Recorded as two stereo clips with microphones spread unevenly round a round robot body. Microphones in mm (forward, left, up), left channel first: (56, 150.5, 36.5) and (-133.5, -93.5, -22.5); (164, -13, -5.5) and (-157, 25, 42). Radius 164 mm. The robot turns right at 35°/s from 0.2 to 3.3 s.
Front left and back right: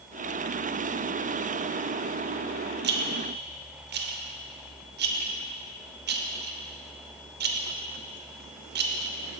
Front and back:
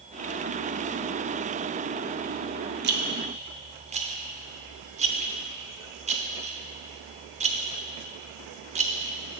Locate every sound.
2.8 s a rattle: 130° right, 0.8 m; by 9.1 s 115° right, 0.8 m